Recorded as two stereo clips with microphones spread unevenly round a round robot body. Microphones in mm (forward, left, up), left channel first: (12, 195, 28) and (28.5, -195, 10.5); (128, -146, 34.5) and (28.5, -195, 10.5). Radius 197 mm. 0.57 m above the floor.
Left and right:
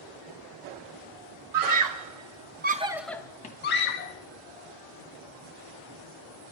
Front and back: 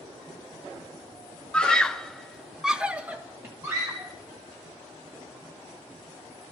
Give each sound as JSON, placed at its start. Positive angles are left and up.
{"t": 1.5, "sound": "a scream", "azimuth_deg": -65, "distance_m": 1.7}